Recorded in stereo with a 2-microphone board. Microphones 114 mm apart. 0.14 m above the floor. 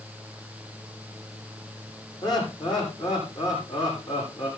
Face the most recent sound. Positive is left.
turn(degrees=40)  # may be behind; listen again after turning